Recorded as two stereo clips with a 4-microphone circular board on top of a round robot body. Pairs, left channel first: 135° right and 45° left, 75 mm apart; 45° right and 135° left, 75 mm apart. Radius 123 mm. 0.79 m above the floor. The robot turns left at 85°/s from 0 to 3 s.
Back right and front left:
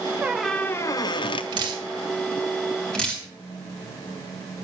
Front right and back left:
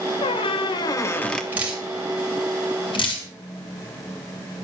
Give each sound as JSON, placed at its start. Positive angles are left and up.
{"t": 0.2, "sound": "a squeak", "azimuth_deg": -25, "distance_m": 0.5}
{"t": 1.5, "sound": "dripping", "azimuth_deg": 65, "distance_m": 2.5}